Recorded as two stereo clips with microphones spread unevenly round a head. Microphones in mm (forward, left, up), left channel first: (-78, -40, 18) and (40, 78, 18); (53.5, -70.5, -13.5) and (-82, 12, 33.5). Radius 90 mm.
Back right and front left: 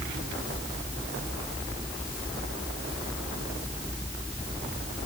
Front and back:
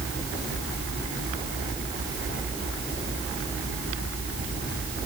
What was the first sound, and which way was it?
Only background noise.